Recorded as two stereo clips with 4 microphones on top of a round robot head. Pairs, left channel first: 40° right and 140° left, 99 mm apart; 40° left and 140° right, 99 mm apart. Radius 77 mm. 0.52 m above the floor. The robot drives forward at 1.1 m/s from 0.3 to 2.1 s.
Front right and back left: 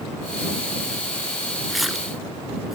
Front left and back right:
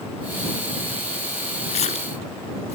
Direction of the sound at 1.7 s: 55° left.